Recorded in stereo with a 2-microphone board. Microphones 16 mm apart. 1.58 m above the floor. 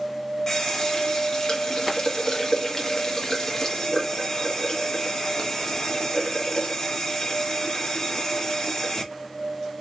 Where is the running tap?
35° left (ahead or behind), 1.2 m.